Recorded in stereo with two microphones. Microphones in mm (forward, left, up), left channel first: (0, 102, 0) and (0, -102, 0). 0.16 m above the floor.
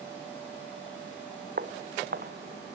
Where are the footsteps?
50° right (ahead or behind), 1.1 m.